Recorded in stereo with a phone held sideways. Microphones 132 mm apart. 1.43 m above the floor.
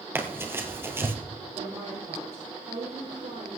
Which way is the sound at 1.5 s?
65° right (ahead or behind).